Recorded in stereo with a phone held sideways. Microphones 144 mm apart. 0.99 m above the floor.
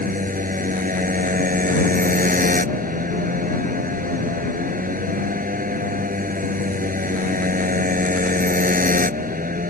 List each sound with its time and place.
0.0 s a motorcycle: 80° right